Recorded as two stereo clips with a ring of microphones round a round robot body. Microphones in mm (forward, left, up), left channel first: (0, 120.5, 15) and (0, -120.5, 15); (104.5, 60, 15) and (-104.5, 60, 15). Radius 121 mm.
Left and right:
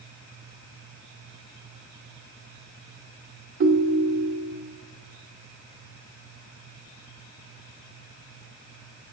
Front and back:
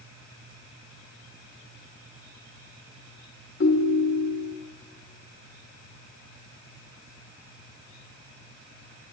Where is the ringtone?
45° right, 0.8 m.